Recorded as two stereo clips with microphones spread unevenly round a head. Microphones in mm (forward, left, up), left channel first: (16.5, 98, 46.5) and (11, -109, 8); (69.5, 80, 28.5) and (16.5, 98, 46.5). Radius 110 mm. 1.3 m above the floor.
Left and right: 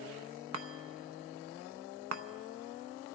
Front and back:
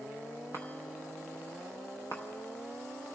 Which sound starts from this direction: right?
A chime, at 0.5 s.